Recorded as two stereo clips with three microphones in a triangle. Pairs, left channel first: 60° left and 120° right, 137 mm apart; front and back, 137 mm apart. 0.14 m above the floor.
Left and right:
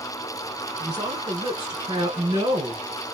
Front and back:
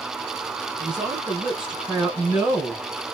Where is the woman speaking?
100° right, 1.8 m.